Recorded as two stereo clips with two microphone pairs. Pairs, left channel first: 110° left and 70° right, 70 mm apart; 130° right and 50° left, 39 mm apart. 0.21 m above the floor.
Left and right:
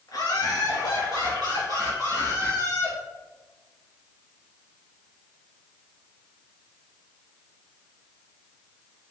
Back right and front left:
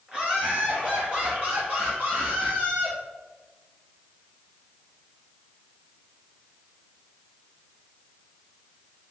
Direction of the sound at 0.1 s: 115° left.